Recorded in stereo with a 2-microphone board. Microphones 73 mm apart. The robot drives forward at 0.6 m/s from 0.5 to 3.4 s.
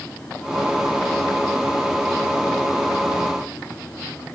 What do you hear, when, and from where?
Only background noise.